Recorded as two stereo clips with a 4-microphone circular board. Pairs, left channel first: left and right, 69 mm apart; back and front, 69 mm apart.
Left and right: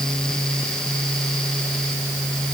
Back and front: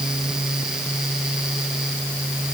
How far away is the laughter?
I don't hear laughter.